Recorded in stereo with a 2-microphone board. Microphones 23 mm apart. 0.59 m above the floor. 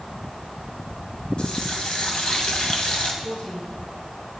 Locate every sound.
1.4 s a running tap: 55° left (ahead or behind), 2.5 m
3.2 s a woman speaking: 75° left (ahead or behind), 7 m